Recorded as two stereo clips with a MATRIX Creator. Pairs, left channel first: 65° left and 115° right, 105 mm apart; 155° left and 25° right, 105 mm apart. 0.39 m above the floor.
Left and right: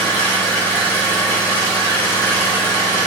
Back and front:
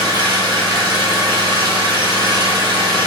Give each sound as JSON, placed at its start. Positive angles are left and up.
{"t": 0.0, "sound": "an engine running", "azimuth_deg": 0, "distance_m": 1.2}